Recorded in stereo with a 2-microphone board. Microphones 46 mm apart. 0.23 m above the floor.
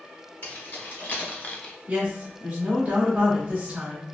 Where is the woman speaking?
30° right (ahead or behind), 1.0 m.